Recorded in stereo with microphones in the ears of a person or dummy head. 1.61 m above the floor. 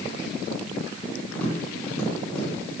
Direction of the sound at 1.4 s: 10° left (ahead or behind).